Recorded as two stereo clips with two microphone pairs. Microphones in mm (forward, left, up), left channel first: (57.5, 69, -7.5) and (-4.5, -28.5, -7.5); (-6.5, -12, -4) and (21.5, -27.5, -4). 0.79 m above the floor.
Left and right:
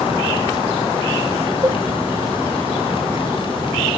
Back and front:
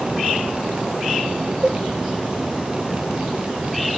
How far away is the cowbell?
About 1.3 m.